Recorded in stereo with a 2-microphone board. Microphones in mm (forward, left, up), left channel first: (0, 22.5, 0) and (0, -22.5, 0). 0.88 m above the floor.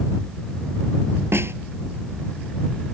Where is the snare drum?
65° right (ahead or behind).